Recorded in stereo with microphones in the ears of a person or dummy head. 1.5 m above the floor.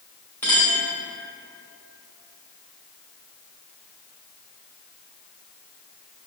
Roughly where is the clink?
Centre.